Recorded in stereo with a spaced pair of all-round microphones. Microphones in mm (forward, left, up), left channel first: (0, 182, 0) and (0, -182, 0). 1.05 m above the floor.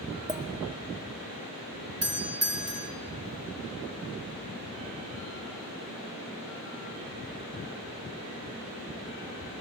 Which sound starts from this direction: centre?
A clink, at 0.3 s.